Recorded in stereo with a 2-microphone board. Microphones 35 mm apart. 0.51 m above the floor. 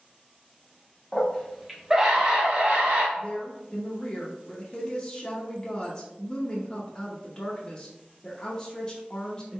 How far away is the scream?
About 1.1 m.